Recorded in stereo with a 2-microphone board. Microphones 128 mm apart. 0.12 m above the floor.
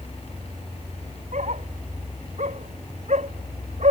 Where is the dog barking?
65° right (ahead or behind).